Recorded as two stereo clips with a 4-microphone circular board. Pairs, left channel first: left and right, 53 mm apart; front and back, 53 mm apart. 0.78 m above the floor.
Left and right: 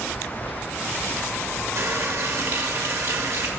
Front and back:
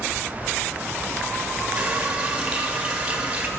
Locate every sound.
1.8 s a running tap: 110° right, 1.0 m